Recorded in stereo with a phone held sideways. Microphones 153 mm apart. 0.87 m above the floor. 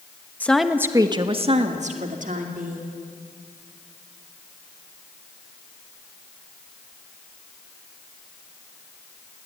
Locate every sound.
0.4 s a woman speaking: 10° left (ahead or behind), 1.1 m; by 3.0 s 65° right (ahead or behind), 3 m